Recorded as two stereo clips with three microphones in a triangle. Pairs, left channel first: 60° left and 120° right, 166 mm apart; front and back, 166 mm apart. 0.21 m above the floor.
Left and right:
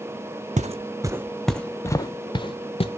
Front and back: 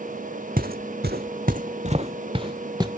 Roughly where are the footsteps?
Behind.